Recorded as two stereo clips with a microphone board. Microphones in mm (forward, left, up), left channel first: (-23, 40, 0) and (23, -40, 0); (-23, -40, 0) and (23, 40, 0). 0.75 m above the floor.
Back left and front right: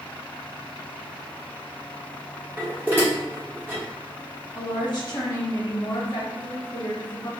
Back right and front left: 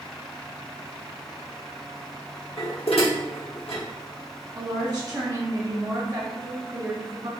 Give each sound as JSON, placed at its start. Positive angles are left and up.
{"t": 2.6, "sound": "dishes clattering", "azimuth_deg": -130, "distance_m": 1.0}
{"t": 4.5, "sound": "a woman speaking", "azimuth_deg": 95, "distance_m": 1.2}